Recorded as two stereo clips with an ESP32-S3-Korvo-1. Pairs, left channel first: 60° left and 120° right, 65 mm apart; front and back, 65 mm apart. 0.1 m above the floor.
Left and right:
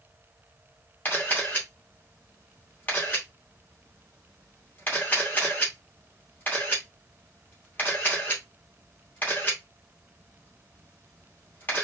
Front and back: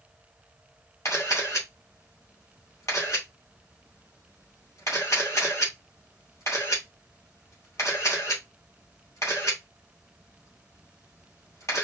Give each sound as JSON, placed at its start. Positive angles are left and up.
{"t": 1.1, "sound": "a camera shutter", "azimuth_deg": 10, "distance_m": 2.5}